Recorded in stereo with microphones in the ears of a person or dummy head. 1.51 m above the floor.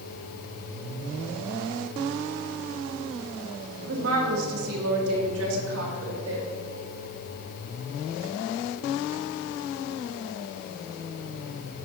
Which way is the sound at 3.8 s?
70° right (ahead or behind).